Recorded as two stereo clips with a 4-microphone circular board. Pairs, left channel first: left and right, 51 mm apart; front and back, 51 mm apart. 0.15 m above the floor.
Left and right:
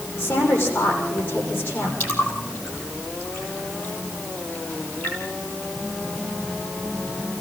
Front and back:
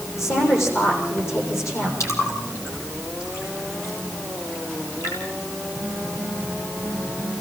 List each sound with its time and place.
0.2 s a woman speaking: 35° left, 6.5 m
2.0 s a splash: 30° left, 5.5 m